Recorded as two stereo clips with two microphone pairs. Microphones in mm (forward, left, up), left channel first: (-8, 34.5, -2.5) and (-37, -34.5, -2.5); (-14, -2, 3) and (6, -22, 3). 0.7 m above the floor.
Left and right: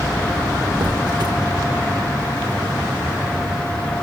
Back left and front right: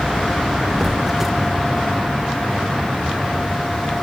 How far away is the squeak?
About 0.9 m.